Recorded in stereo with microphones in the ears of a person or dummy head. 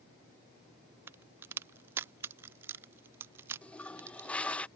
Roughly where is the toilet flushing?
Centre.